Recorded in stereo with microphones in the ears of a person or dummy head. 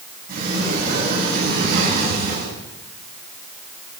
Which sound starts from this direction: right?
A sliding door, at 0.3 s.